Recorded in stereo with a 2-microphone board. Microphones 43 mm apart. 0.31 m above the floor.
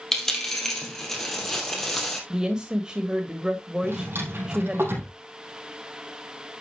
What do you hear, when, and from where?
0.1 s a dropped coin: 10° left (ahead or behind), 2.5 m
2.3 s a woman speaking: 20° right (ahead or behind), 1.4 m
3.8 s a drawer: 65° right (ahead or behind), 4 m